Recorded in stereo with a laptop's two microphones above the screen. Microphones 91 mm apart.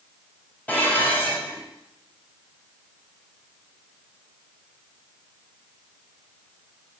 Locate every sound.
0.7 s dishes clattering: 20° left (ahead or behind), 2.5 m